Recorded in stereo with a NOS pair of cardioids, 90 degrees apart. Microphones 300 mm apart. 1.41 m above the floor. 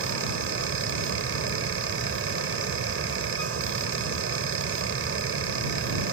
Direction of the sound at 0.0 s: 45° right.